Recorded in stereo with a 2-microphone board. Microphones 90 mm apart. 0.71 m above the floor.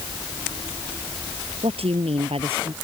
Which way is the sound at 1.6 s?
85° right.